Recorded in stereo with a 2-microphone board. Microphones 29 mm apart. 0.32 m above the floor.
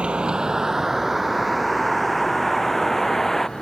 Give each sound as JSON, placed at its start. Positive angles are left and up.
{"t": 0.0, "sound": "a vehicle", "side_deg": -40}